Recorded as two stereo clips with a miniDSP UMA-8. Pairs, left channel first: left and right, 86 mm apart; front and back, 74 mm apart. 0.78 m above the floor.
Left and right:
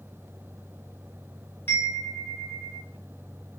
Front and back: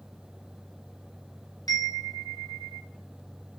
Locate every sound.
1.7 s a chime: 30° left, 0.6 m